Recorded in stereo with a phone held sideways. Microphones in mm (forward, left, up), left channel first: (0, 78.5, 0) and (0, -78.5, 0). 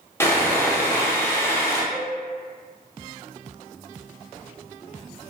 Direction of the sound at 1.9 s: 10° right (ahead or behind).